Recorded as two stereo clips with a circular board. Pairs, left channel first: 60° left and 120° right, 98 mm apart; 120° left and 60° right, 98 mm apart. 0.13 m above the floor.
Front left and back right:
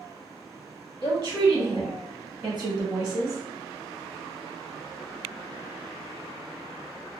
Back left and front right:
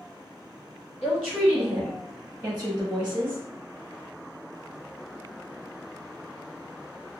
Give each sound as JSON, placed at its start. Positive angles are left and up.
{"t": 1.0, "sound": "a woman speaking", "azimuth_deg": -155, "distance_m": 1.4}